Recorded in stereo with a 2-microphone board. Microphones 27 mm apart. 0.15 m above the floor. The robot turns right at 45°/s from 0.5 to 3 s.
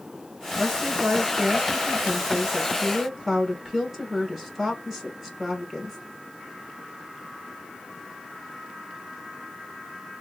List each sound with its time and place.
0.6 s a woman speaking: 125° right, 2.5 m; by 6.0 s 15° right, 2.5 m